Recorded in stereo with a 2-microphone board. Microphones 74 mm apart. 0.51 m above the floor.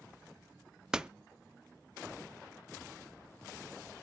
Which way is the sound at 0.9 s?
10° right (ahead or behind).